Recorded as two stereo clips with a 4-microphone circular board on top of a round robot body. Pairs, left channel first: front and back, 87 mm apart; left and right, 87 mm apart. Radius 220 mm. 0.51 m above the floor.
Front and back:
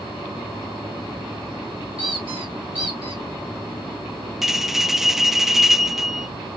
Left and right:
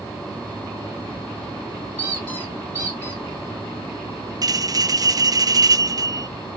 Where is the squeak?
160° left, 2 m.